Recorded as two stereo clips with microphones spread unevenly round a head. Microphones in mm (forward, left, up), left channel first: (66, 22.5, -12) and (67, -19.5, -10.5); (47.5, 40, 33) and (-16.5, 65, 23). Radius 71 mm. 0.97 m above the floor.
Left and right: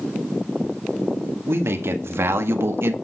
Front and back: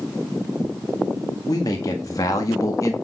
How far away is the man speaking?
About 1.8 m.